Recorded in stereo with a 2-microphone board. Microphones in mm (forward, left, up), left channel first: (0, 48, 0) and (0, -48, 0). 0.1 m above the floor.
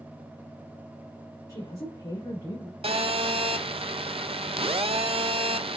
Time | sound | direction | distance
1.5 | a woman speaking | 45° left (ahead or behind) | 2.5 m
2.8 | a phone buzzing | 75° right (ahead or behind) | 0.5 m